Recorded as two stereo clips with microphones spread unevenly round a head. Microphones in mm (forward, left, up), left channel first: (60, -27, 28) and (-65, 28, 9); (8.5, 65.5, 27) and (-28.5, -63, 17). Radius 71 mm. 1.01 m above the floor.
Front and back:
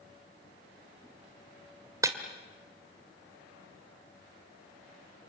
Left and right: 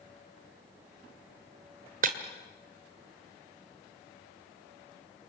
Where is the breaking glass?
135° right, 1.8 m.